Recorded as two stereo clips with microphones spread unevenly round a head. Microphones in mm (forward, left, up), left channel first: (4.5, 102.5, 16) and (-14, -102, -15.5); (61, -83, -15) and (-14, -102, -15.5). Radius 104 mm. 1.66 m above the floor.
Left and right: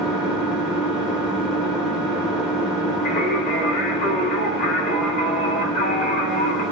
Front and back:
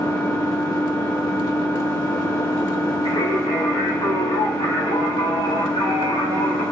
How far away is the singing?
About 3.5 m.